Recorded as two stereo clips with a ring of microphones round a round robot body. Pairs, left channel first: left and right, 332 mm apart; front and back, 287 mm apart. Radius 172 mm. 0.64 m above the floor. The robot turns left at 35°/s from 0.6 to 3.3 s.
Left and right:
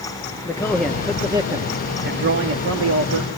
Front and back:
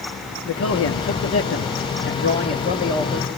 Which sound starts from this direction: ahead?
A man speaking, at 0.5 s.